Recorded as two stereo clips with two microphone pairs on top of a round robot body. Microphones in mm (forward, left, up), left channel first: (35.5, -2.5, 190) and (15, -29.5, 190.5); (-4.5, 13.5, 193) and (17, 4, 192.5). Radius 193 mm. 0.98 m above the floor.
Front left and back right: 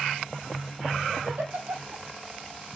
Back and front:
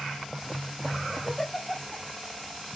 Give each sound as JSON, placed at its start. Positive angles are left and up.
{"t": 1.2, "sound": "a giggle", "azimuth_deg": -125, "distance_m": 3.0}